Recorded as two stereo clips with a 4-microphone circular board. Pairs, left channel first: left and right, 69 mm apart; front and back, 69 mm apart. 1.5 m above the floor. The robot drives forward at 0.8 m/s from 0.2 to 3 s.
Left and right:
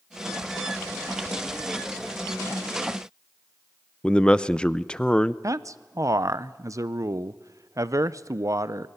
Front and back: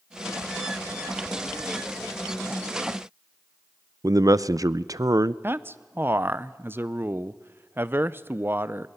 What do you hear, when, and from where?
4.0 s a man speaking: 165° left, 0.6 m
5.4 s a man speaking: 125° right, 0.6 m